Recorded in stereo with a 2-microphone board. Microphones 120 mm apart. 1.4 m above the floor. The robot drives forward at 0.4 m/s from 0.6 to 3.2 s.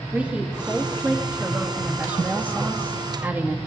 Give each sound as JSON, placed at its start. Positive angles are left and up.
{"t": 0.1, "sound": "a woman speaking", "side_deg": -10, "distance_m": 2.5}